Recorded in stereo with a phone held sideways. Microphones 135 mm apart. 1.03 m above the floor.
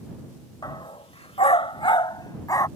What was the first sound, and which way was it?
A dog barking, 35° left (ahead or behind).